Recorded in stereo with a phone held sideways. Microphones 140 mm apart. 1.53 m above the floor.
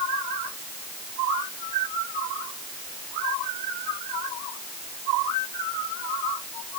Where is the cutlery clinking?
No cutlery clinking in this recording.